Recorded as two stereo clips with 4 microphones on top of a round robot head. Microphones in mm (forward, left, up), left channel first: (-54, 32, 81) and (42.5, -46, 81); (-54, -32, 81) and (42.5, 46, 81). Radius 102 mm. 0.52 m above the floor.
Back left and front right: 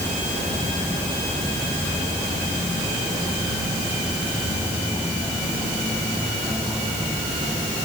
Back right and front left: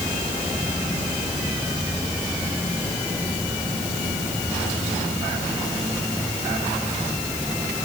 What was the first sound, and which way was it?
Only background noise.